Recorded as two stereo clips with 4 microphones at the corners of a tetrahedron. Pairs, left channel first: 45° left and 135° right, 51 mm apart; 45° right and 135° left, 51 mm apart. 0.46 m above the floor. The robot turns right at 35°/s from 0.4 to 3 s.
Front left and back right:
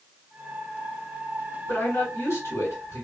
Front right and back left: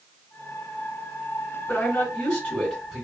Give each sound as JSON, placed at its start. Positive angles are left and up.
{"t": 1.7, "sound": "a man speaking", "azimuth_deg": 0, "distance_m": 2.0}